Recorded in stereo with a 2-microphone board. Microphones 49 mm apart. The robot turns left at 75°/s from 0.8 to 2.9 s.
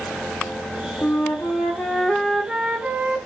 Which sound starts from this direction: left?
A flute, at 1.0 s.